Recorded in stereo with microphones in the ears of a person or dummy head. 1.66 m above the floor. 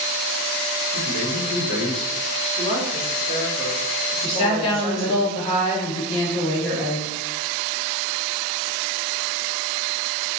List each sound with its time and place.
0.9 s a man speaking: 70° left (ahead or behind), 1.4 m
2.6 s a woman speaking: 45° left (ahead or behind), 1.5 m
4.2 s a woman speaking: 25° left (ahead or behind), 1.1 m